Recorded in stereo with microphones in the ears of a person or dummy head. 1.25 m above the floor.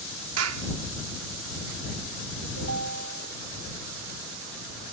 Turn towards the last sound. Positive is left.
turn(degrees=-85)